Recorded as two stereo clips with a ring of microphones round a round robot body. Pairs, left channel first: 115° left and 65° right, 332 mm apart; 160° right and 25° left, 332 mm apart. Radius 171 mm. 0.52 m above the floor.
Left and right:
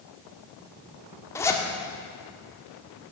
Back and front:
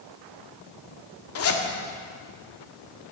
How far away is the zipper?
About 1.6 m.